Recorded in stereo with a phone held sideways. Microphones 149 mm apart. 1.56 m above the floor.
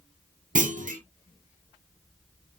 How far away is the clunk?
About 0.7 m.